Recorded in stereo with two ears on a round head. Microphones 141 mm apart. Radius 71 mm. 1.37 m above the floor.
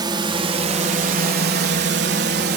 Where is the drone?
25° right (ahead or behind); by 2.6 s 65° right (ahead or behind).